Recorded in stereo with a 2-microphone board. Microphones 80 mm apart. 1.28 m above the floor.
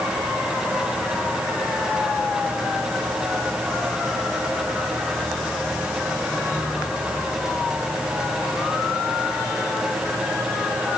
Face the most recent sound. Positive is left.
No sound to turn to.